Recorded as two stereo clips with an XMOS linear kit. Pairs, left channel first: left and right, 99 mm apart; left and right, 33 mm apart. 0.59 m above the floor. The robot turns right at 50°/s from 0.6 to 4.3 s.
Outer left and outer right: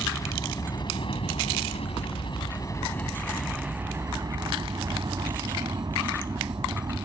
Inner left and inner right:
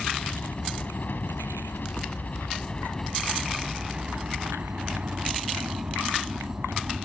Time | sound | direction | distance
0.0 | a helicopter | 40° left | ?